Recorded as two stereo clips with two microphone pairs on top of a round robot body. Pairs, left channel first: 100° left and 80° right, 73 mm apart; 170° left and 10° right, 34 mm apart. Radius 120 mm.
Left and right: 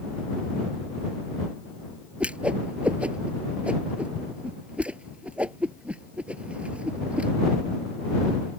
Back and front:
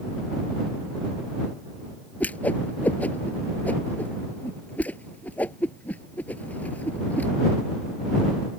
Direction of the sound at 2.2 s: 150° right.